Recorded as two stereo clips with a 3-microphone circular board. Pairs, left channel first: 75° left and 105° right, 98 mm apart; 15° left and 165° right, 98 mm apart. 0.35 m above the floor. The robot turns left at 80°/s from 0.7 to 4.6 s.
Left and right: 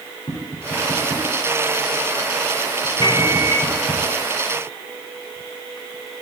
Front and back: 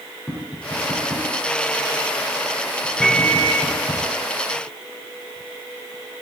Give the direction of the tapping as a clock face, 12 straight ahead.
9 o'clock.